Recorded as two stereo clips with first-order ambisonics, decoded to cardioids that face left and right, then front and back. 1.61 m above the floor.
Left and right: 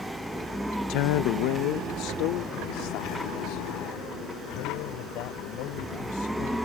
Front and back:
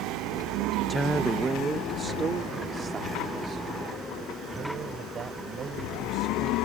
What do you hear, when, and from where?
0.9 s a woman speaking: 85° left; by 6.5 s 120° left